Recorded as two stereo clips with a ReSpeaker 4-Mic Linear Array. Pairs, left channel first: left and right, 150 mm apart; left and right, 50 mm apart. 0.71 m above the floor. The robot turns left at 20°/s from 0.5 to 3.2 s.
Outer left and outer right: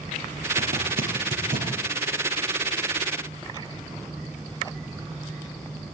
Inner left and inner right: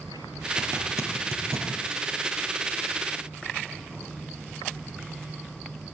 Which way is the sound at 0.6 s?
85° right.